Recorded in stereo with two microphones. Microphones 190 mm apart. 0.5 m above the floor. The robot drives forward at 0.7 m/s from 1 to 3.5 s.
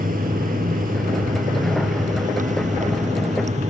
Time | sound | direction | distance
0.0 | running water | 45° right (ahead or behind) | ?